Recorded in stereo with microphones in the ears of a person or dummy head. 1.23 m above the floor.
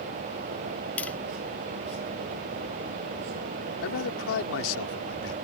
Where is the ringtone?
No ringtone in this recording.